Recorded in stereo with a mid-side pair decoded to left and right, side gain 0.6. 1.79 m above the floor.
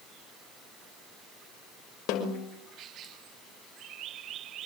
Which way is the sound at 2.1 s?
70° left.